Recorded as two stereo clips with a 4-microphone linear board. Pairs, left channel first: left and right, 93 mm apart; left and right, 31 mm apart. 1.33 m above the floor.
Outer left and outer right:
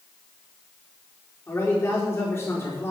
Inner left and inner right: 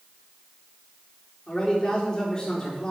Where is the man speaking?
25° left (ahead or behind), 4.5 m.